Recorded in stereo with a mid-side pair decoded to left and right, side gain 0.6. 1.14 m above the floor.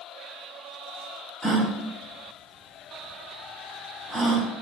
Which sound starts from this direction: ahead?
A gasp, at 1.4 s.